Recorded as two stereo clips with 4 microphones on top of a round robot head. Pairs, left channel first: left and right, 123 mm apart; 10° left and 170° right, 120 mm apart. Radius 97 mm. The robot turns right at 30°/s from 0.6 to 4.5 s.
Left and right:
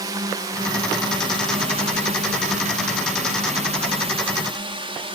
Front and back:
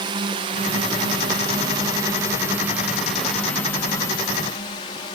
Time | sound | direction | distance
0.0 | a drone | 140° right | ?